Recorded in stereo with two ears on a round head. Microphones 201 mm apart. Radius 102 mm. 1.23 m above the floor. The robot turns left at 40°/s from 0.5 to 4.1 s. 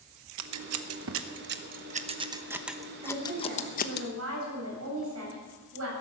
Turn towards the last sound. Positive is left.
turn(degrees=-65)